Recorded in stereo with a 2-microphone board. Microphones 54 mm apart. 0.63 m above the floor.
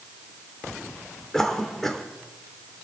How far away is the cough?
About 2.5 m.